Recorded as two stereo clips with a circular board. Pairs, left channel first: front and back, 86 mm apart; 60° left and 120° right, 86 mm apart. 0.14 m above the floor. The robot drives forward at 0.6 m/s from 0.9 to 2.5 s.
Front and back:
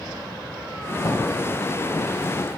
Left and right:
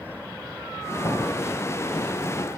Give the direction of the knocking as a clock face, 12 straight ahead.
11 o'clock.